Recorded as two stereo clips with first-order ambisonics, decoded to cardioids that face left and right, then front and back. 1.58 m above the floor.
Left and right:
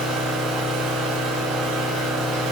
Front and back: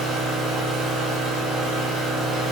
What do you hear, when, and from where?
0.0 s an engine running: 125° right, 5 m